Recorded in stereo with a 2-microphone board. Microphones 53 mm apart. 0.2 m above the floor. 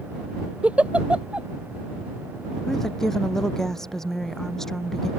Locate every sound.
0.6 s a giggle: 25° right (ahead or behind)
2.7 s a woman speaking: 10° left (ahead or behind)